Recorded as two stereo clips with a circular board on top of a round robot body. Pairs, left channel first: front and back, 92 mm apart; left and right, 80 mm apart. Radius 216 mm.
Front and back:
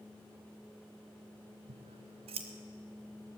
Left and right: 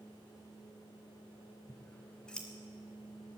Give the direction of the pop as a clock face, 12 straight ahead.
No pop in this recording.